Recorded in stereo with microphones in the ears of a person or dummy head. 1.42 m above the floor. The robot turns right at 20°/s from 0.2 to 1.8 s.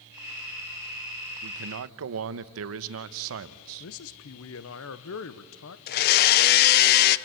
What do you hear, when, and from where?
1.4 s a man speaking: 75° right (ahead or behind), 1.0 m
3.8 s a man speaking: 65° left (ahead or behind), 1.1 m
5.9 s a blender: 50° left (ahead or behind), 0.8 m